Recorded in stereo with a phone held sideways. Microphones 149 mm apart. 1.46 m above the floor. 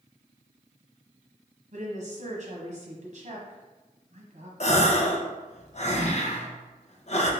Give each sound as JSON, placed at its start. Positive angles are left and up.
{"t": 1.7, "sound": "a woman speaking", "side_deg": -60, "distance_m": 0.9}
{"t": 4.6, "sound": "a gasp", "side_deg": 50, "distance_m": 0.6}